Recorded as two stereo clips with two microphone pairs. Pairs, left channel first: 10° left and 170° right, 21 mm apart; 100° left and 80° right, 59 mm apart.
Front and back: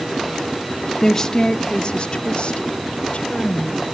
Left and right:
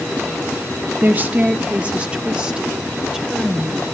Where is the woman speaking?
50° right, 0.9 m; by 3.9 s straight ahead, 2.5 m.